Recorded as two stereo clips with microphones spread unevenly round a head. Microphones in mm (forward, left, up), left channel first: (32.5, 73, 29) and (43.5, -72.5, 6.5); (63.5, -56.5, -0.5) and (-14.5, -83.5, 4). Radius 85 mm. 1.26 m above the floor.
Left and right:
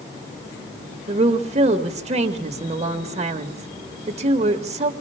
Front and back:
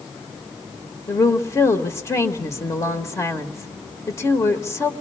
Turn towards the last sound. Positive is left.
turn(degrees=-35)